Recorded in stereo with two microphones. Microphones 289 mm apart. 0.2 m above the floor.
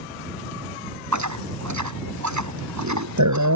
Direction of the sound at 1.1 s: 75° right (ahead or behind).